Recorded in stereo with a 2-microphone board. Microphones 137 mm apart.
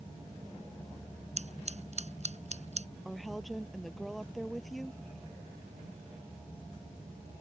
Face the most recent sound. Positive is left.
turn(degrees=0)  # may be behind; listen again after turning